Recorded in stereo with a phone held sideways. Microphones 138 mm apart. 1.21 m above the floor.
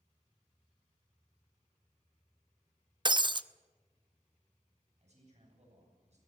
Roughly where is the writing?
No writing in this recording.